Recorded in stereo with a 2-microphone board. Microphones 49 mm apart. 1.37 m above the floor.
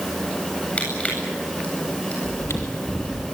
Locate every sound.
0.8 s crushing: 25° left (ahead or behind), 8.5 m
2.2 s chewing: 70° left (ahead or behind), 3 m